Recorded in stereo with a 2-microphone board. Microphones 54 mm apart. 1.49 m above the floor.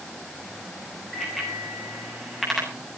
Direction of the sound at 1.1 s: Centre (ahead or behind).